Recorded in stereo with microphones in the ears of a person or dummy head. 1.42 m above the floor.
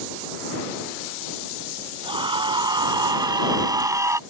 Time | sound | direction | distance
2.0 | a scream | 35° right (ahead or behind) | ?